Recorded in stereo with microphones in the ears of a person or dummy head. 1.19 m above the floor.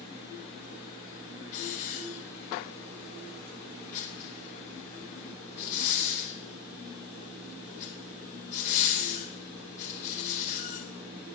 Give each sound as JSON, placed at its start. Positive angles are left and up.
{"t": 1.5, "sound": "a hiss", "side_deg": 40, "distance_m": 4.0}